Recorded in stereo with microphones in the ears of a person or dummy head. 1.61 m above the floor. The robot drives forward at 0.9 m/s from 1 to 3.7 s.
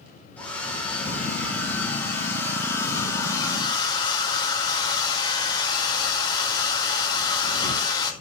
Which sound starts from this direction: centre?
A hair dryer, at 0.4 s.